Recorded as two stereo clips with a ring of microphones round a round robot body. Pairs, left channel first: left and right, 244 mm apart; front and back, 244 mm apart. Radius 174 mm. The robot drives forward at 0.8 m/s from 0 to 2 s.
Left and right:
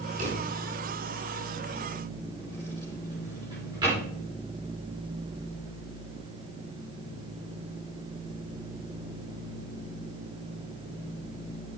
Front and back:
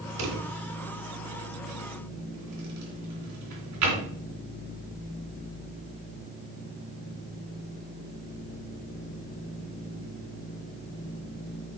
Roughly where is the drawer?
Behind.